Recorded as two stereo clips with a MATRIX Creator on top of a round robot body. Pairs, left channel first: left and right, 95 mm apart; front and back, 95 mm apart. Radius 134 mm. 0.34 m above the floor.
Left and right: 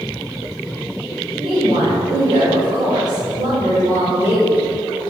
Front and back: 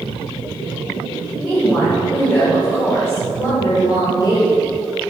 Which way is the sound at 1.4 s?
85° right.